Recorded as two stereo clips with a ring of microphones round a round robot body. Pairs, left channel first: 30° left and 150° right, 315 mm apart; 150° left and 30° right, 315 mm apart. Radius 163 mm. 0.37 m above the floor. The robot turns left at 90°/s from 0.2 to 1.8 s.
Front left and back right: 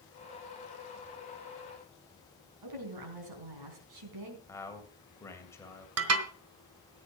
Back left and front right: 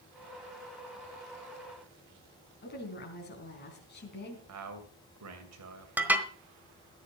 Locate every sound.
2.6 s a woman speaking: 150° right, 4 m
4.5 s a man speaking: 50° right, 2.5 m
6.0 s dishes clattering: 115° right, 1.3 m